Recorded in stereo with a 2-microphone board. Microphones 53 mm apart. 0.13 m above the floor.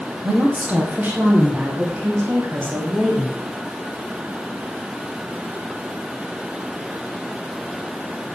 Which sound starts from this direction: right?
A woman speaking, at 0.2 s.